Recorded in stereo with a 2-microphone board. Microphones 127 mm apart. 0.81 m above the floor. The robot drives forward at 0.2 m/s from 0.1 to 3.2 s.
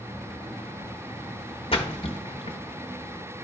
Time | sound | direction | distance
1.7 | a splash | 45° left (ahead or behind) | 0.8 m